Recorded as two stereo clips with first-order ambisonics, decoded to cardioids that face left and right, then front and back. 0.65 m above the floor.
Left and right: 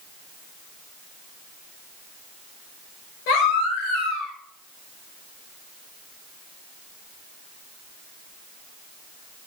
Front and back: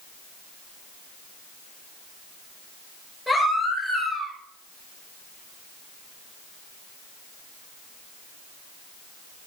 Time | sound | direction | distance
3.3 | a baby crying | 90° left | 5.5 m